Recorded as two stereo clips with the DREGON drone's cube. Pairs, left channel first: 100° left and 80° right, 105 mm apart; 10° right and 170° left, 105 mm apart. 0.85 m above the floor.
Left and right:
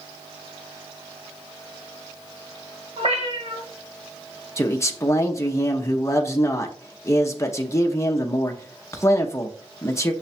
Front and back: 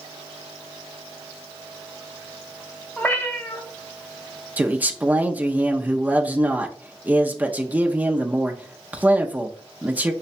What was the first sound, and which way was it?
A cat meowing, 85° right.